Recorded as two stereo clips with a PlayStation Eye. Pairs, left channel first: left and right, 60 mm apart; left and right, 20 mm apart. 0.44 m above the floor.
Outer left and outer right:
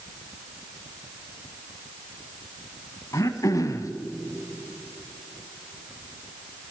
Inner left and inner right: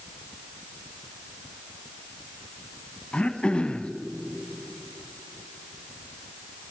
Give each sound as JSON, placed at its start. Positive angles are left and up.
{"t": 3.1, "sound": "throat clearing", "side_deg": 75, "distance_m": 0.7}